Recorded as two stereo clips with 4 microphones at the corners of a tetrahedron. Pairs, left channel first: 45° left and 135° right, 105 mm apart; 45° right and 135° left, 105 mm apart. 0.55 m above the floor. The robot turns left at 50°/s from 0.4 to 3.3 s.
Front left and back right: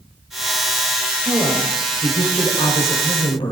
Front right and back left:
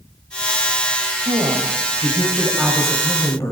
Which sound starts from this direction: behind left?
A woman speaking, at 1.2 s.